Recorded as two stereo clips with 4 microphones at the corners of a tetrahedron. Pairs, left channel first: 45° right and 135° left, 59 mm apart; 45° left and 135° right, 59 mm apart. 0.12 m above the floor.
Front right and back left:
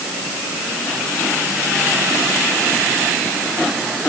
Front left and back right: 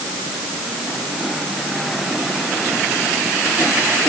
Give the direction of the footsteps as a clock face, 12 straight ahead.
No footsteps in this recording.